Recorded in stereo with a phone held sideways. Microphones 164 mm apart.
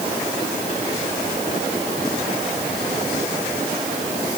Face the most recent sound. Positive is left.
No sound to turn to.